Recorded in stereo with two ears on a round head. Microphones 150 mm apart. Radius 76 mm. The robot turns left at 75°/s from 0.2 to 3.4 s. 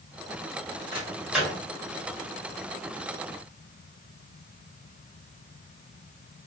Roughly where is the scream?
No scream in this recording.